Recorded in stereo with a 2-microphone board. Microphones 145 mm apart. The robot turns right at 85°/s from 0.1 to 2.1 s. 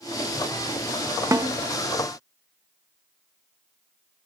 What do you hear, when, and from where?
1.3 s a snare drum: 20° right (ahead or behind), 0.8 m; by 1.5 s 30° right (ahead or behind), 0.8 m